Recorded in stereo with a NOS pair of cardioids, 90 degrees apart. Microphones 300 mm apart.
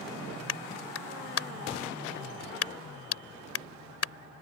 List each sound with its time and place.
0.5 s a clap: 50° left